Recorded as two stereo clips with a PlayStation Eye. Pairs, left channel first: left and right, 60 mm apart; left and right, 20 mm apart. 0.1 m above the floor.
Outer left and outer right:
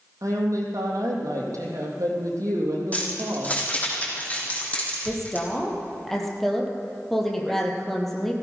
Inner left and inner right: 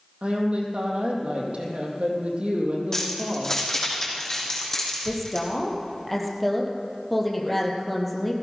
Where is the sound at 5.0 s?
5° left (ahead or behind), 2.5 m.